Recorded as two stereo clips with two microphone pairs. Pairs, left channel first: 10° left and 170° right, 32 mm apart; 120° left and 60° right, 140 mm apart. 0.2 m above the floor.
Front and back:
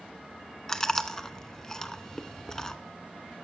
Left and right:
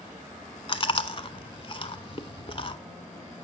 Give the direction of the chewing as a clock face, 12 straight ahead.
9 o'clock.